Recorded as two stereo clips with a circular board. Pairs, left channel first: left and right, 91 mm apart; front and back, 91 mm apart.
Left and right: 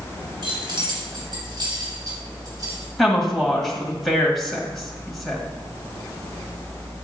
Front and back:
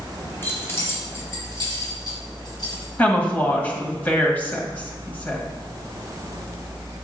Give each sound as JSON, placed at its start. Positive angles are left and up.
{"t": 0.4, "sound": "keys jangling", "azimuth_deg": -65, "distance_m": 3.0}
{"t": 3.0, "sound": "a woman speaking", "azimuth_deg": 5, "distance_m": 1.5}